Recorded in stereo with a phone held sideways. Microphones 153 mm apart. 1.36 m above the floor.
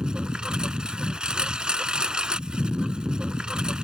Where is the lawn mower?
5° right (ahead or behind).